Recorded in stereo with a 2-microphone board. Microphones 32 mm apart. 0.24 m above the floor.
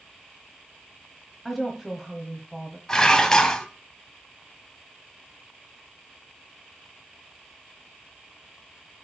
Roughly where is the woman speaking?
Centre.